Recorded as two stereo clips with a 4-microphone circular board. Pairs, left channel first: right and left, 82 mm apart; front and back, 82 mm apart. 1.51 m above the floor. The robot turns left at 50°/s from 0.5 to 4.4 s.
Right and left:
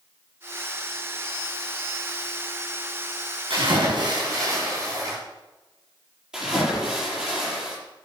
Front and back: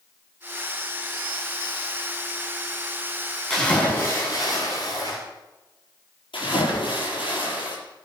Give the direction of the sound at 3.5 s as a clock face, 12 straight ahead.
9 o'clock.